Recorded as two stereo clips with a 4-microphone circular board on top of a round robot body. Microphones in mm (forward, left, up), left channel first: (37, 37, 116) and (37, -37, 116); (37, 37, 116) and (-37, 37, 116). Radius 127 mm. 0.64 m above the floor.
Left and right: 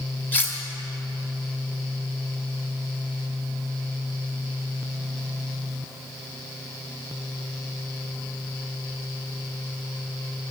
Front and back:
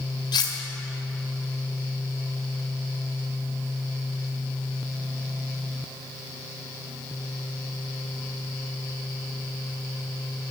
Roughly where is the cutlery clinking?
Ahead left.